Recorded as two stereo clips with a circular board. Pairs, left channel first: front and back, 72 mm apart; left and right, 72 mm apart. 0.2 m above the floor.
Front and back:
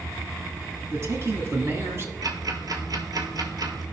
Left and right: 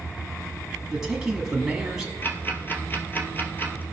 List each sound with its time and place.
0.9 s a man speaking: 165° right, 1.6 m
2.2 s ticking: 150° left, 1.2 m